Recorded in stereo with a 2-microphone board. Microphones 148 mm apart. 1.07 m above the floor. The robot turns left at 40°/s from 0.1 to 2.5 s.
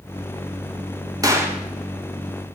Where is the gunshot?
25° right (ahead or behind), 1.5 m; by 2.6 s 25° left (ahead or behind), 1.5 m.